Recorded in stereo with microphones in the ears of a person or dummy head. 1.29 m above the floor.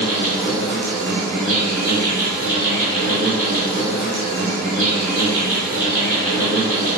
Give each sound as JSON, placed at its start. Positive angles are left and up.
{"t": 0.0, "sound": "an insect", "side_deg": -50, "distance_m": 1.3}